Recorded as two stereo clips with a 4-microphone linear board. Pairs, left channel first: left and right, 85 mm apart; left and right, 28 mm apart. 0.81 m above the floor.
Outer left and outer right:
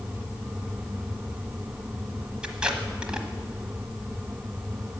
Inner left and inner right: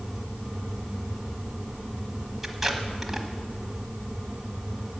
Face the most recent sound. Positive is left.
turn(degrees=-10)  # may be behind; listen again after turning